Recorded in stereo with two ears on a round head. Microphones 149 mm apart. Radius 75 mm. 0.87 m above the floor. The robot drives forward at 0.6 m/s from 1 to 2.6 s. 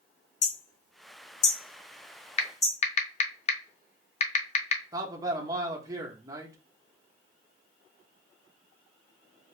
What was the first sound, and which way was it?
Hammering, 45° left (ahead or behind).